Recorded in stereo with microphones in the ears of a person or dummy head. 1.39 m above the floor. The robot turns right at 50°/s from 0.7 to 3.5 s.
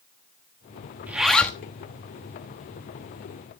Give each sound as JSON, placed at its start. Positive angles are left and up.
{"t": 1.1, "sound": "a zipper", "side_deg": -15, "distance_m": 1.2}